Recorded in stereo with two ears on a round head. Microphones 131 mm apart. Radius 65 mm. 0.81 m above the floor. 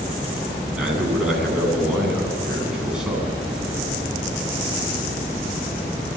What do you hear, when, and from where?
0.7 s a man speaking: 5° right (ahead or behind), 9 m